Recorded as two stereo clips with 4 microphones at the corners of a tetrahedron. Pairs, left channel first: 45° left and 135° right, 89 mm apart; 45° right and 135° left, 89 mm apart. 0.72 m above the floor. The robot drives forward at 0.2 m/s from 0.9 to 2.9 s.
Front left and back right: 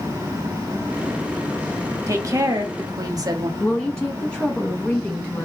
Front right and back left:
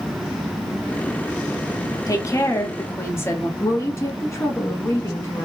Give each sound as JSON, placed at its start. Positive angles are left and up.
{"t": 2.1, "sound": "a woman speaking", "azimuth_deg": -90, "distance_m": 0.9}
{"t": 3.6, "sound": "a woman speaking", "azimuth_deg": -25, "distance_m": 0.8}